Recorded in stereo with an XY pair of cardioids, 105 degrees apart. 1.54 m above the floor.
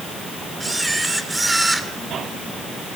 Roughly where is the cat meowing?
No cat meowing in this recording.